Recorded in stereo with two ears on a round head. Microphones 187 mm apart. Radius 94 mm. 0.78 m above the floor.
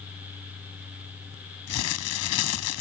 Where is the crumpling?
85° left.